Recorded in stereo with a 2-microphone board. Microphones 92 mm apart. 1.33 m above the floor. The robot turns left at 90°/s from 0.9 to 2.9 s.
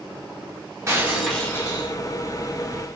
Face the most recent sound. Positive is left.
turn(degrees=30)